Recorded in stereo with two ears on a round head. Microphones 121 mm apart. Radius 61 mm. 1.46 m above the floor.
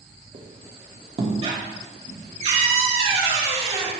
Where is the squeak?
45° right (ahead or behind), 1.3 m.